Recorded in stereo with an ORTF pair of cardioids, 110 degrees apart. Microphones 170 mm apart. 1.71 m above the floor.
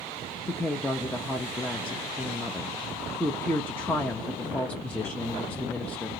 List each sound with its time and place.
0.5 s a woman speaking: 10° left, 0.6 m